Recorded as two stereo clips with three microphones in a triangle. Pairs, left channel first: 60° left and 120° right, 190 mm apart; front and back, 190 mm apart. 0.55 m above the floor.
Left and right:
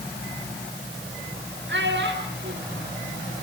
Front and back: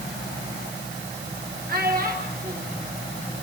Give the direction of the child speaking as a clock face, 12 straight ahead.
5 o'clock.